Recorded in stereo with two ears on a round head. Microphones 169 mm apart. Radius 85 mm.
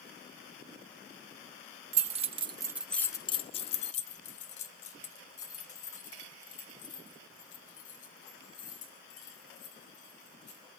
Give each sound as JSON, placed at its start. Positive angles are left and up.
{"t": 1.9, "sound": "keys jangling", "side_deg": -35, "distance_m": 1.1}